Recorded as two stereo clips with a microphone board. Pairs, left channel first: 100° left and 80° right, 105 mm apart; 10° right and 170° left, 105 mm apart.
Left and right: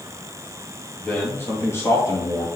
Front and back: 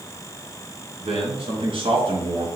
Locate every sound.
1.0 s a man speaking: 170° left, 3.5 m; by 2.5 s 150° left, 3 m